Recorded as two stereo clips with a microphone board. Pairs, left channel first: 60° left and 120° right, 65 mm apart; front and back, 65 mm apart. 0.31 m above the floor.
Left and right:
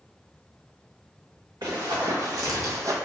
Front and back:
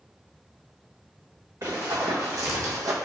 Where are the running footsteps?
145° right, 1.9 m; by 3.0 s 155° right, 0.9 m.